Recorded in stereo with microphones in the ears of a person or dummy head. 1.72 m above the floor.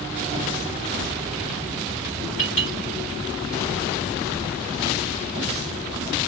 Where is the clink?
35° left (ahead or behind), 3 m.